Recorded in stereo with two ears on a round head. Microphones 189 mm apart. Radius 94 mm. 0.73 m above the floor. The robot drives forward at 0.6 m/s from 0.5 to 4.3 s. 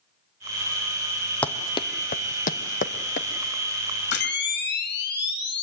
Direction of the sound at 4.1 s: 55° left (ahead or behind).